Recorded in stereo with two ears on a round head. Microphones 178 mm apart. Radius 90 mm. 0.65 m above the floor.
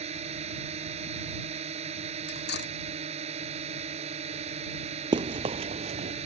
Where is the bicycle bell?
I don't hear a bicycle bell.